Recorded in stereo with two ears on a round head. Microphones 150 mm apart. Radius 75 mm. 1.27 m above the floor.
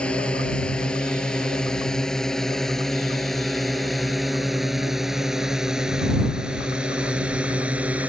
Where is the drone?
5° left (ahead or behind); by 8.1 s 10° right (ahead or behind).